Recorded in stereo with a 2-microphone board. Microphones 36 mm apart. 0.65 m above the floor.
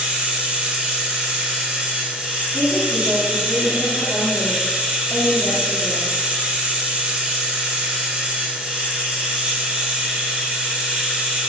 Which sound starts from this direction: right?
Running water, at 0.0 s.